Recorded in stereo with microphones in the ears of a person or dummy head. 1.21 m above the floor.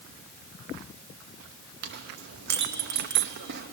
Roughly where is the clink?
Right.